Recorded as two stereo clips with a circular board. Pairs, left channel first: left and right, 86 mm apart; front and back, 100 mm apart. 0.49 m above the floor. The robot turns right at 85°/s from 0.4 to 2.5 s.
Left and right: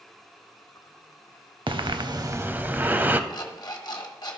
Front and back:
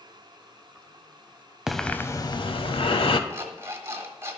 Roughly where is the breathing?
Right.